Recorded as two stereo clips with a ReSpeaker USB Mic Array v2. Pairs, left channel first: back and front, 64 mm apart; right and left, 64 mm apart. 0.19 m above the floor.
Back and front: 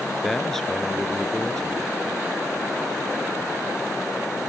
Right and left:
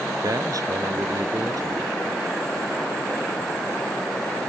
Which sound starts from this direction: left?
A man speaking, at 0.2 s.